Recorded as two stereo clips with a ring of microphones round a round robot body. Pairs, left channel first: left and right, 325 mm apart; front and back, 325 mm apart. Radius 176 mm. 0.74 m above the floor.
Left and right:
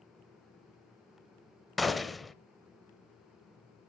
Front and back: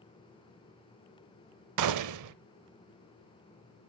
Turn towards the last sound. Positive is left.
turn(degrees=180)